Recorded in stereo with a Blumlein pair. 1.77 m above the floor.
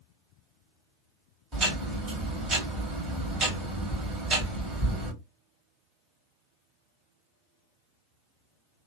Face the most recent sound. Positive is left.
turn(degrees=-30)